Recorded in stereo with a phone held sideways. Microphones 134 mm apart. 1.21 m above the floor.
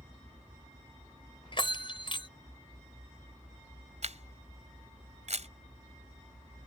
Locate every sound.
1.5 s a bell: 40° left (ahead or behind)
4.0 s a camera shutter: 60° right (ahead or behind)